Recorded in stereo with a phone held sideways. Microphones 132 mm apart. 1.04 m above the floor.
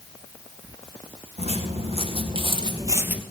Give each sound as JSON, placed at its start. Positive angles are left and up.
{"t": 1.4, "sound": "footsteps", "side_deg": -50, "distance_m": 3.5}